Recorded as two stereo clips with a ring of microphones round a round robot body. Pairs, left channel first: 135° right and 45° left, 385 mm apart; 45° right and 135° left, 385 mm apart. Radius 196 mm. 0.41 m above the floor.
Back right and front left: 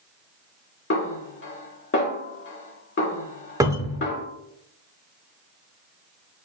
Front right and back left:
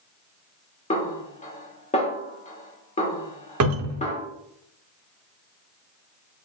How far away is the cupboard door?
About 0.6 m.